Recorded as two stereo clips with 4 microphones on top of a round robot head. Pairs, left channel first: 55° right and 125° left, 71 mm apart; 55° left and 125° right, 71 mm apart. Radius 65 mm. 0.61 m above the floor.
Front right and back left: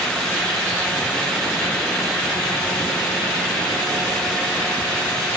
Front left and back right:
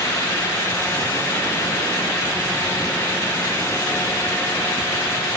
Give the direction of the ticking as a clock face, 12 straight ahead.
I don't hear ticking.